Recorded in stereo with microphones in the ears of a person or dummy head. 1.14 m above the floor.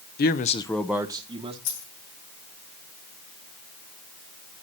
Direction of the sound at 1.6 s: 65° left (ahead or behind).